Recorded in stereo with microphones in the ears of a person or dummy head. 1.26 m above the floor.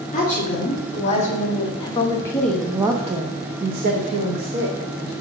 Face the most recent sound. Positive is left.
turn(degrees=-85)